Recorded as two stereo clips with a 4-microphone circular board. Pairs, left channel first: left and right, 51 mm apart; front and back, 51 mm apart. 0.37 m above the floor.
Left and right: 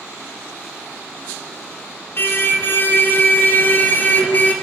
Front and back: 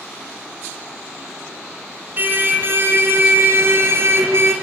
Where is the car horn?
130° left, 2 m; by 4.5 s 145° left, 3 m.